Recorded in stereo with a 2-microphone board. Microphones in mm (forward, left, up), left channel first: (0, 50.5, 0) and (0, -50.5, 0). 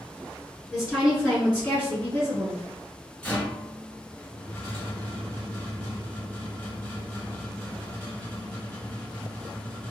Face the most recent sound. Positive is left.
turn(degrees=10)  # may be behind; listen again after turning